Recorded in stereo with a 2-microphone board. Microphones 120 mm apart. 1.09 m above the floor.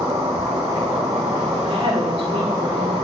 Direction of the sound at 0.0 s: 40° right (ahead or behind).